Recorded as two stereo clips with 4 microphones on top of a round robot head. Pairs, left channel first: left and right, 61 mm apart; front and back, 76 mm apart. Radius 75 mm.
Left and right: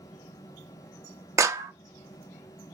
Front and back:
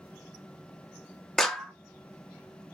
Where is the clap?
85° right, 0.6 m.